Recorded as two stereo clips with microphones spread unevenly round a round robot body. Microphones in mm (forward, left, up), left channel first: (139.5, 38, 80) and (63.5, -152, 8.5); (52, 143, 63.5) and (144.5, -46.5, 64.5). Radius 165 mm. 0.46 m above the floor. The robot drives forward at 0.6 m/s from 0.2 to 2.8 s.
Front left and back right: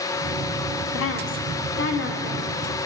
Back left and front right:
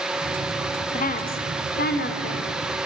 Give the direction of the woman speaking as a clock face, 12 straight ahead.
9 o'clock.